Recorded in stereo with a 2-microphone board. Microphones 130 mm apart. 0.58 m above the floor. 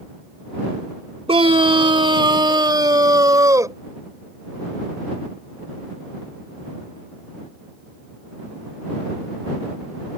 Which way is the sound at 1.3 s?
50° right (ahead or behind).